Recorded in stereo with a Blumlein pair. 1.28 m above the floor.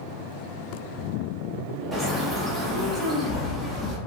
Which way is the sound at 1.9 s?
10° right.